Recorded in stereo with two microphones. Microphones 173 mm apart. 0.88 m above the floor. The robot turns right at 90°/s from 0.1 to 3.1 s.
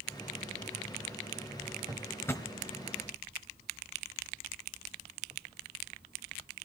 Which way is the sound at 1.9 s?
20° right (ahead or behind).